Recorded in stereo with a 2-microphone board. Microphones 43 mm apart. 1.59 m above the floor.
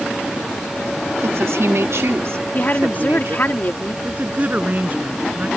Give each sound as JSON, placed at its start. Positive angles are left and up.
{"t": 1.2, "sound": "a woman speaking", "side_deg": -90}
{"t": 2.5, "sound": "a woman speaking", "side_deg": 45}
{"t": 4.0, "sound": "a woman speaking", "side_deg": -40}